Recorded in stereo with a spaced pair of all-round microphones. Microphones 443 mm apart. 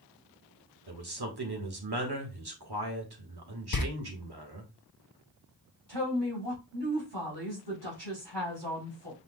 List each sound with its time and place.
0.9 s a man speaking: 60° right (ahead or behind), 1.4 m
3.7 s a door slam: 50° left (ahead or behind), 0.7 m
5.9 s a woman speaking: 65° right (ahead or behind), 3.5 m